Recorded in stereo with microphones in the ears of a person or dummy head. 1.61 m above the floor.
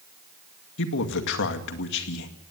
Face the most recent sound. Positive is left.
turn(degrees=70)  # may be behind; listen again after turning